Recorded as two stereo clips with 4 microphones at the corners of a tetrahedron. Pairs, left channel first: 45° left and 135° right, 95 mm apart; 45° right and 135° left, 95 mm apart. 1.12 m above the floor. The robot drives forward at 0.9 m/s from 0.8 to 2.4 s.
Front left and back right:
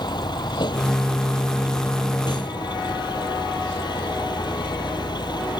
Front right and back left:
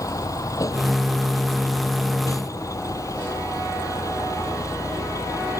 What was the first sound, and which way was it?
A vehicle, 10° left.